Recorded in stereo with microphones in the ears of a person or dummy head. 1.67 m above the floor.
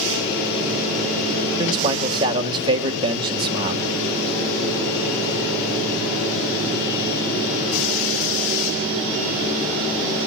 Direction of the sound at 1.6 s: 30° right (ahead or behind).